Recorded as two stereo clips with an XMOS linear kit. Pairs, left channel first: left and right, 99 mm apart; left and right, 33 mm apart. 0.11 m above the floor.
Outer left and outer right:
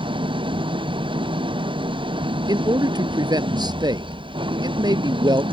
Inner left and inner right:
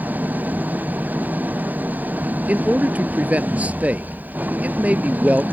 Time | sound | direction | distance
0.0 | an engine running | 65° right (ahead or behind) | ?
2.5 | a man speaking | 50° right (ahead or behind) | ?